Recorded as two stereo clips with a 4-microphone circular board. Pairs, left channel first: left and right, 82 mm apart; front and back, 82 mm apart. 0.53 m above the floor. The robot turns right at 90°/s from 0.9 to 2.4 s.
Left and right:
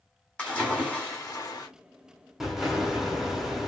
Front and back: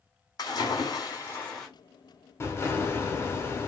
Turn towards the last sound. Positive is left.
turn(degrees=-5)